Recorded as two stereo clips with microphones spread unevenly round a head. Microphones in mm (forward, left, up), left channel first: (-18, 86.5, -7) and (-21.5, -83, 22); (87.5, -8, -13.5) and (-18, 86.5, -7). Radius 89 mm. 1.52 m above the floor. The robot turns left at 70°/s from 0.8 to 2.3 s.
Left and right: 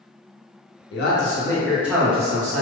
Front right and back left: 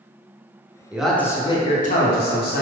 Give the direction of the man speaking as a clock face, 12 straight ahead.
10 o'clock.